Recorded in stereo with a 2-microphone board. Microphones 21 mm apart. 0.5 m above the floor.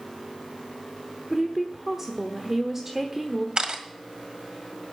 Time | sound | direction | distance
1.3 | a woman speaking | 15° right (ahead or behind) | 1.0 m
3.6 | a camera shutter | 55° right (ahead or behind) | 1.7 m